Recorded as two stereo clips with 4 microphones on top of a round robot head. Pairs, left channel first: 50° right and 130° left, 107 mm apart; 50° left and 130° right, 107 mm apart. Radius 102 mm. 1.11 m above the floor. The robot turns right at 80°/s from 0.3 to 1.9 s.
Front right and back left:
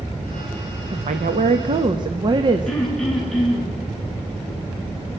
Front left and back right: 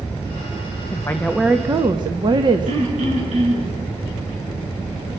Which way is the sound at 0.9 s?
100° left.